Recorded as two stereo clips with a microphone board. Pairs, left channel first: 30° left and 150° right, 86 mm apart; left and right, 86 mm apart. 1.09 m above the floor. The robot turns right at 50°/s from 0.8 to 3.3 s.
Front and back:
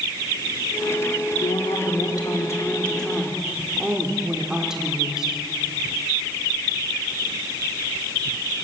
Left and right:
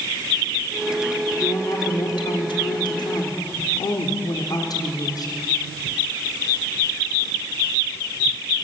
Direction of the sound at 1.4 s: 30° left.